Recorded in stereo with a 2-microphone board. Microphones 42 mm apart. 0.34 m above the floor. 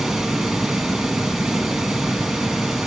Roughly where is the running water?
Centre.